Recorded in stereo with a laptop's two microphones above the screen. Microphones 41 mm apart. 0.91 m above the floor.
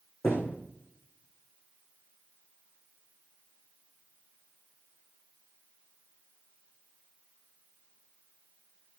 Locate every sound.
0.2 s a thud: 80° left, 8.5 m